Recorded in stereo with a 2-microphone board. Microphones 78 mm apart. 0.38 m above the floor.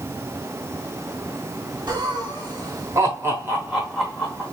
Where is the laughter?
60° right (ahead or behind), 1.6 m; by 4.4 s 15° left (ahead or behind), 1.0 m.